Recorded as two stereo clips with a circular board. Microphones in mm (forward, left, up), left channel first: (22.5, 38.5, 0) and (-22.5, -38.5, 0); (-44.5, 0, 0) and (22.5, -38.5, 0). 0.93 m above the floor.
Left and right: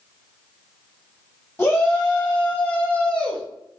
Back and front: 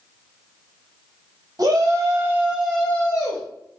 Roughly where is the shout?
Ahead.